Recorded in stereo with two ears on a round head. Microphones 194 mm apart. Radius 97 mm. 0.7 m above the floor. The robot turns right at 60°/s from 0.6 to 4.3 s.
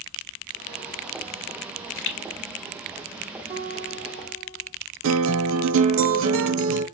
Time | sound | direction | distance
1.6 | a pop | 80° left | 2 m
3.5 | a guitar | 30° right | 1.8 m
5.0 | a guitar | 65° right (ahead or behind) | 1.3 m